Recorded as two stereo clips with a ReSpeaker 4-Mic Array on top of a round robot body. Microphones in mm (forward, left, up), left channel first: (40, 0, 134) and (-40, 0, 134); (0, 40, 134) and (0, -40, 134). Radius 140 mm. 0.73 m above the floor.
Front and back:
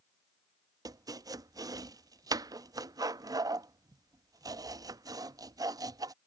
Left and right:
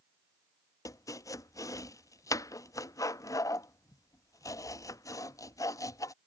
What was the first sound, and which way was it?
Chopping, 140° left.